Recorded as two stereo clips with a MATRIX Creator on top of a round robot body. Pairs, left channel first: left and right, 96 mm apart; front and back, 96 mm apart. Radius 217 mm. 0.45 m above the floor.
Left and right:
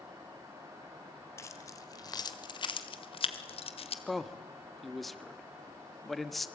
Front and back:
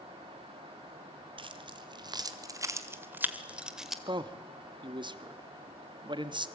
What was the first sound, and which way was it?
Keys jangling, 150° left.